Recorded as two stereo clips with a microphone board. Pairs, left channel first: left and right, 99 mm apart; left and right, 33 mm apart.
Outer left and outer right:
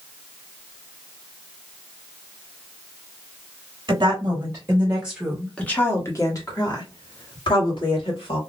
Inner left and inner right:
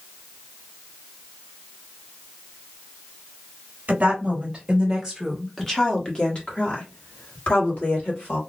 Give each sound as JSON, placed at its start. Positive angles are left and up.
{"t": 3.9, "sound": "a woman speaking", "side_deg": -45, "distance_m": 1.3}